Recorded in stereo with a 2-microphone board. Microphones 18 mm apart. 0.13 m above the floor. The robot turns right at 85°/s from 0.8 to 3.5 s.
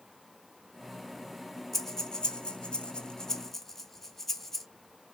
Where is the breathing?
10° left (ahead or behind), 0.7 m; by 4.7 s 20° left (ahead or behind), 0.7 m.